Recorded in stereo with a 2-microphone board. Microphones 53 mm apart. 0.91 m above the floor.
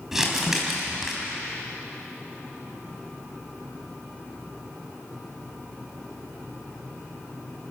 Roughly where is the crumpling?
Centre.